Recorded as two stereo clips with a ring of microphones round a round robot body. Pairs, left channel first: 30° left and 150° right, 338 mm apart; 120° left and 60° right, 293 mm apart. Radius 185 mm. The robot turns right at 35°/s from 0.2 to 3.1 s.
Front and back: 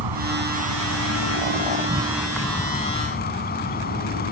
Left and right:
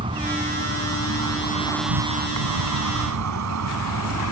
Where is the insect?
135° right; by 4.3 s 35° right.